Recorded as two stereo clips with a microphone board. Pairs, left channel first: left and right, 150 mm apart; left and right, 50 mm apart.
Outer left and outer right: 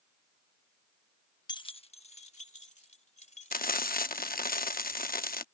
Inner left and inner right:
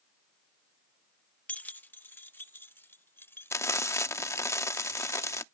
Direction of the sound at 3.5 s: 70° left (ahead or behind).